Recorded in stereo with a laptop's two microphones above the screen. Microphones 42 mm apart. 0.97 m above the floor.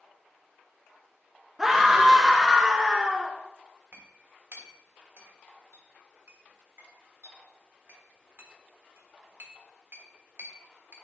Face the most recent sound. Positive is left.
turn(degrees=-60)  # may be behind; listen again after turning